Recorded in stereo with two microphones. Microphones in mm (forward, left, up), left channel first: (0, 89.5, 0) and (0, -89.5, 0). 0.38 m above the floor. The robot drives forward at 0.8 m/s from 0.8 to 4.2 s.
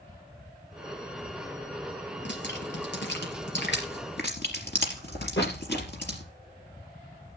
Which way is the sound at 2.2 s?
85° left.